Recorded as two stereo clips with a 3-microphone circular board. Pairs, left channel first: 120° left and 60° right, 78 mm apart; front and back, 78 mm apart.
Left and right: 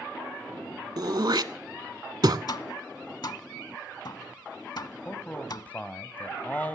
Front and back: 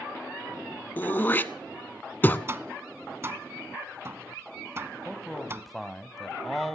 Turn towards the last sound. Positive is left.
turn(degrees=85)